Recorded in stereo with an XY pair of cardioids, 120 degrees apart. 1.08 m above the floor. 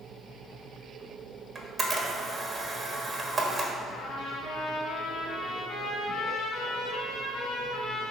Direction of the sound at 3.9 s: 65° left.